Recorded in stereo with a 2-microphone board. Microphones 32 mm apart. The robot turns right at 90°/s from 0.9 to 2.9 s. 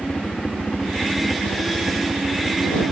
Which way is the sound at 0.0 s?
150° left.